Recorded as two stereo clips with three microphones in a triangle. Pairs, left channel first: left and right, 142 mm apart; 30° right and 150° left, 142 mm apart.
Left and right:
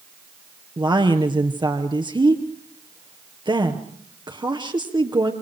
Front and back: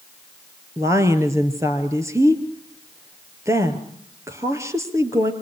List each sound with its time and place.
0.8 s a woman speaking: 140° right, 2.5 m